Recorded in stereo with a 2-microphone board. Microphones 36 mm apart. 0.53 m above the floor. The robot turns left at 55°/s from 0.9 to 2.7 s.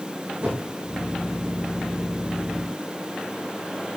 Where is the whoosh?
45° right (ahead or behind), 8.5 m.